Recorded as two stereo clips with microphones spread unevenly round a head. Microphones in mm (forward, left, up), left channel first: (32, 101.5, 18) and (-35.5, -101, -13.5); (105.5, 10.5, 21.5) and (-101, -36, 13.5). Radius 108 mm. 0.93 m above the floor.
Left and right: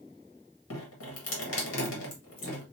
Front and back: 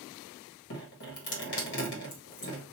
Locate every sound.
0.7 s dripping: 45° left, 1.9 m